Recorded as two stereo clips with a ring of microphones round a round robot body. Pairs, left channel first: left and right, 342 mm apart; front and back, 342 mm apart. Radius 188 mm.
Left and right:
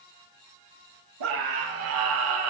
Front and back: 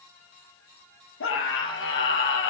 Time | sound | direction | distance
1.2 | a scream | 55° right | 9 m